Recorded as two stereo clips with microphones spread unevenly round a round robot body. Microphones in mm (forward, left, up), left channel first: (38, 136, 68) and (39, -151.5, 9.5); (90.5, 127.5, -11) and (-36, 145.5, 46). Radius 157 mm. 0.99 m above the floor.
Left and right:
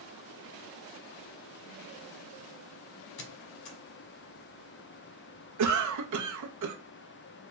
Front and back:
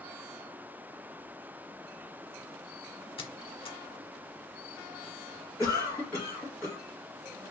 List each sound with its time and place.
3.2 s a squeak: 50° left, 1.1 m
5.6 s a cough: 80° right, 0.9 m